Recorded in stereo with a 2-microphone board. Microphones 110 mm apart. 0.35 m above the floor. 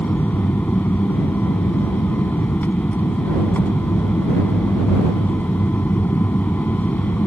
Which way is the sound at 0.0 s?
15° left (ahead or behind).